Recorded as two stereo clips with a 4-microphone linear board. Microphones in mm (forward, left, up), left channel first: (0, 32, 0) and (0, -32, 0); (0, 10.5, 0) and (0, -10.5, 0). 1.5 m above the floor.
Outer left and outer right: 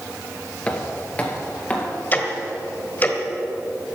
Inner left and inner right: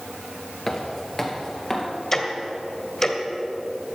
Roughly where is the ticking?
Left.